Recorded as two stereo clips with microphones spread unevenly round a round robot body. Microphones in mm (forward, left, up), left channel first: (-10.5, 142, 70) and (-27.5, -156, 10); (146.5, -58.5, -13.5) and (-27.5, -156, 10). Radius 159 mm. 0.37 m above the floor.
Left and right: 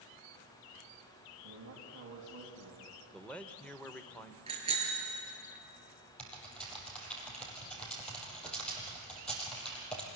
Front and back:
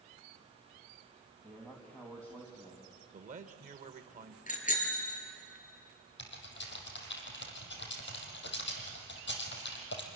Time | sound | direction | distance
1.4 | a man speaking | 55° right | 3.5 m
3.1 | a man speaking | 170° right | 1.3 m
4.5 | a bicycle bell | 20° right | 5.5 m
6.2 | typing on a keyboard | straight ahead | 4.5 m